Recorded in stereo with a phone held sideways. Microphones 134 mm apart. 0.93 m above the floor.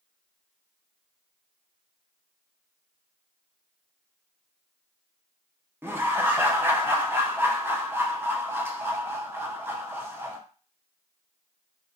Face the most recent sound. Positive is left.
turn(degrees=-15)  # may be behind; listen again after turning